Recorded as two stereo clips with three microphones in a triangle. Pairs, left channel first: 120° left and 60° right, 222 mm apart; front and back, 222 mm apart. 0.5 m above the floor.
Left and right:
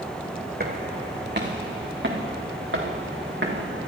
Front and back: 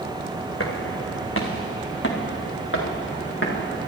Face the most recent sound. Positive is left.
turn(degrees=-30)